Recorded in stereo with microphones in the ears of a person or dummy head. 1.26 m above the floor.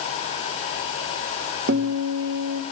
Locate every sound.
1.7 s a guitar: 65° right (ahead or behind), 1.9 m